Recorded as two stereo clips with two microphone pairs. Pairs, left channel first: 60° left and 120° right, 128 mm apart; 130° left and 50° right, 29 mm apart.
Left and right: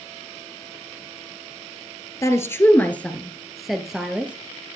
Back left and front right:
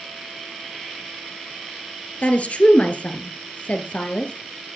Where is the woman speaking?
120° left, 1.9 m; by 4.3 s 165° left, 2 m.